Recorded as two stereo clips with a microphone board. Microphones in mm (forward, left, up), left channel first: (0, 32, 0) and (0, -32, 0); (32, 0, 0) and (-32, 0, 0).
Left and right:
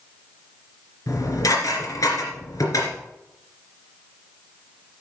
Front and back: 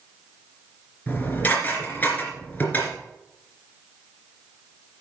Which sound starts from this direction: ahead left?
Dishes clattering, at 1.1 s.